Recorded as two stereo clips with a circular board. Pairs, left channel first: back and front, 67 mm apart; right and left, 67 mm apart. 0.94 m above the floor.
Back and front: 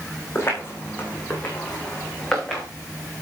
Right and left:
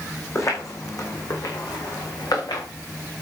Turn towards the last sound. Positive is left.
turn(degrees=-100)